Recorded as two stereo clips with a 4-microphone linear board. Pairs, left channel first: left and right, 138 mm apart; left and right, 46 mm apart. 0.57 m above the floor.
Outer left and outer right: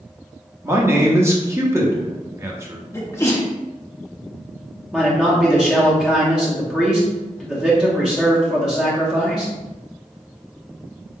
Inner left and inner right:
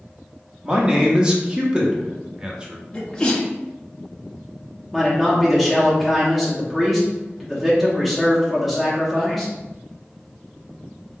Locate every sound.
0.6 s a man speaking: 20° right (ahead or behind), 0.8 m
2.9 s a sneeze: 20° left (ahead or behind), 0.7 m
4.9 s a man speaking: 5° right (ahead or behind), 0.9 m